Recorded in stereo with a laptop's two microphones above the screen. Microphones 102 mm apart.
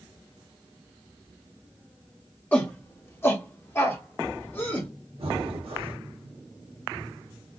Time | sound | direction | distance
2.5 | a shout | 20° left (ahead or behind) | 0.8 m
5.2 | breathing | 70° right (ahead or behind) | 1.0 m